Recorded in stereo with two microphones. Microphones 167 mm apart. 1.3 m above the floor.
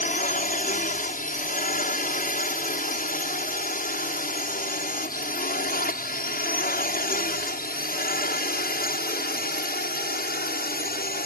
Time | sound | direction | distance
0.0 | a drone | 50° left (ahead or behind) | ?